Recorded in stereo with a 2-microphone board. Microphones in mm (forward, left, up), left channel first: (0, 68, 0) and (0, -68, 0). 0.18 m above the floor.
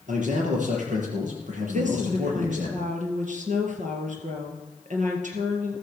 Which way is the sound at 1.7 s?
65° right (ahead or behind).